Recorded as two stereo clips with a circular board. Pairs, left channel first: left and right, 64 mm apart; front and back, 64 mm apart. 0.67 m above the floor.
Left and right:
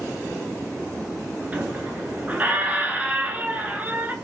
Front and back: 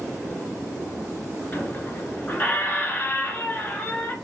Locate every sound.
1.5 s a squeak: 40° right, 0.7 m